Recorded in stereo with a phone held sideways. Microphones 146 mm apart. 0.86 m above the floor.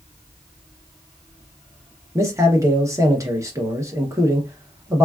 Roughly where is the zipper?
I don't hear a zipper.